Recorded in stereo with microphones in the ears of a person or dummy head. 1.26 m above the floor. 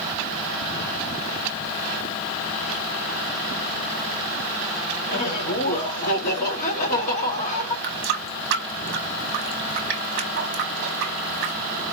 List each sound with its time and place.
5.1 s laughter: 40° left (ahead or behind), 1.8 m
7.8 s a running tap: 55° right (ahead or behind), 0.8 m